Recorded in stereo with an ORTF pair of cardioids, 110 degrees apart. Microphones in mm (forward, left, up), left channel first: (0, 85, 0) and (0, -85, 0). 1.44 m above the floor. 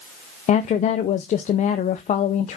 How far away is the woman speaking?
About 0.6 m.